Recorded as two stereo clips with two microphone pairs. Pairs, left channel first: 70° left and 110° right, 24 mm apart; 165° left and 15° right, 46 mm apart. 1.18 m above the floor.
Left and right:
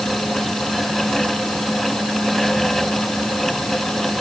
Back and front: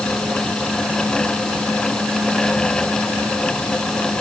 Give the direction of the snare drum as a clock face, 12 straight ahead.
No snare drum in this recording.